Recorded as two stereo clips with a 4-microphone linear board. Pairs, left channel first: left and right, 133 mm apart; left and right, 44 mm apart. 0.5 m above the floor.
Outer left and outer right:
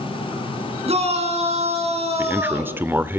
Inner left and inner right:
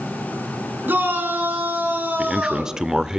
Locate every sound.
0.9 s a shout: 50° right (ahead or behind), 6.5 m
2.2 s a man speaking: 15° right (ahead or behind), 1.2 m